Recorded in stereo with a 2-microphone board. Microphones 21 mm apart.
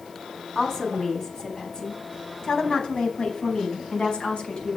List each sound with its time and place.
0.6 s a woman speaking: 25° left (ahead or behind), 4.5 m; by 4.8 s 60° left (ahead or behind), 5.5 m